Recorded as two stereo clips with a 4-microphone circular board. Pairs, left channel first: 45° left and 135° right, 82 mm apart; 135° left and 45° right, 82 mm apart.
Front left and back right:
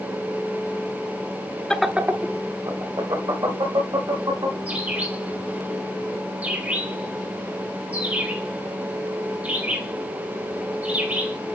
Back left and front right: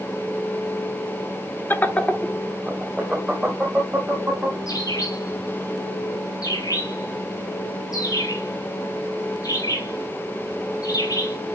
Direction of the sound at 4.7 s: 155° left.